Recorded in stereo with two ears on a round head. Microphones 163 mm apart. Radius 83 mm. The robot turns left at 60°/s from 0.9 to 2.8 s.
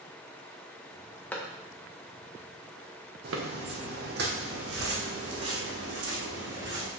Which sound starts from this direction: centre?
A clap, at 1.3 s.